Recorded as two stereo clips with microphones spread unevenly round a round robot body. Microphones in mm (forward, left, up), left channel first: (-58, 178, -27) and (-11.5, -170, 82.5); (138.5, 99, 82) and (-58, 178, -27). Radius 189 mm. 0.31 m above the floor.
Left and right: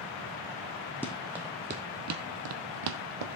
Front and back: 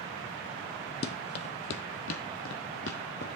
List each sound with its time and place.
1.0 s running footsteps: 10° left, 1.2 m; by 3.4 s 80° right, 1.3 m